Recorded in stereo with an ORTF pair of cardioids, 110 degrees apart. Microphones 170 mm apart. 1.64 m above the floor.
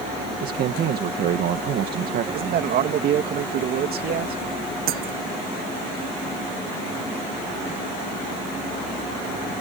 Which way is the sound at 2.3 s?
65° right.